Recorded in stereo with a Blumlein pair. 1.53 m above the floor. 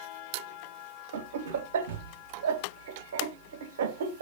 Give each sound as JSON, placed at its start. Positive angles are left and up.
{"t": 1.1, "sound": "laughter", "azimuth_deg": -60, "distance_m": 0.5}